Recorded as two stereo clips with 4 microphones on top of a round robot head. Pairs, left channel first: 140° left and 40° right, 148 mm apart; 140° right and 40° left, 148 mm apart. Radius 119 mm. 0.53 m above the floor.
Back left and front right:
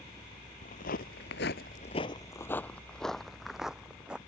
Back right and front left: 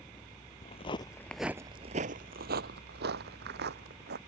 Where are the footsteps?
175° left; by 4.2 s 40° left.